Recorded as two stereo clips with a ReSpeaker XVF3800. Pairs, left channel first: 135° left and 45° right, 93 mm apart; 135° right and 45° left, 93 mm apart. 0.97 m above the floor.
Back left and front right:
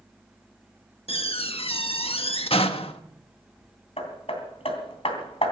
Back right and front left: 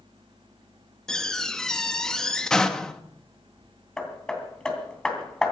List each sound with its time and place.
1.1 s a door slam: 140° left, 1.1 m
4.0 s hammering: 145° left, 3 m